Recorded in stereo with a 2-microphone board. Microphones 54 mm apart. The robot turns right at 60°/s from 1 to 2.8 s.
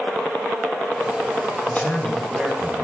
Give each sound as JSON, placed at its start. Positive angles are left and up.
{"t": 1.7, "sound": "a man speaking", "azimuth_deg": 140, "distance_m": 4.0}